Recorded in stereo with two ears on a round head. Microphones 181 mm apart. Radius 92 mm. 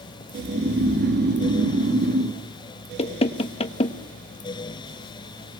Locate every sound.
0.3 s snoring: 55° right (ahead or behind), 2.5 m
3.0 s knocking: 30° left (ahead or behind), 1.1 m